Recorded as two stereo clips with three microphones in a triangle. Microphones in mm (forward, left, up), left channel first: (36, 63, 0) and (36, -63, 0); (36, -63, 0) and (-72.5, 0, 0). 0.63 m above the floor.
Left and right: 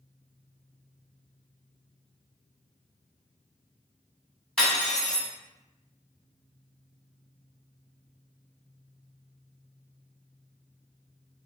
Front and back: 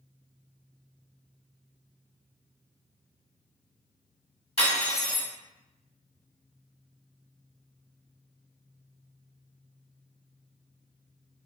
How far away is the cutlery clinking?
About 1.1 m.